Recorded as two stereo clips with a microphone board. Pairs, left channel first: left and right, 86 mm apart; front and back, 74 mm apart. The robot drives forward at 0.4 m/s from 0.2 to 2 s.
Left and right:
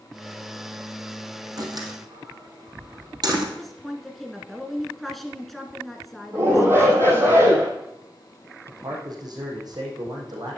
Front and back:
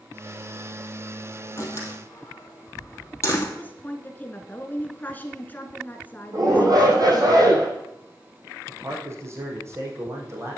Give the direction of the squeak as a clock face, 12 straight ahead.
I don't hear a squeak.